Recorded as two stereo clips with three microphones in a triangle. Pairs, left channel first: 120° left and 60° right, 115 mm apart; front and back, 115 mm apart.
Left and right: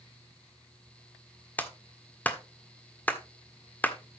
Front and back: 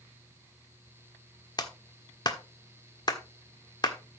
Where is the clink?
No clink in this recording.